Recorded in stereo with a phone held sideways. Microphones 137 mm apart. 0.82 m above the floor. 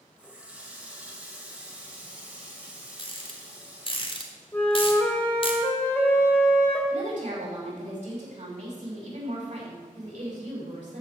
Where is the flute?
15° left (ahead or behind), 2 m.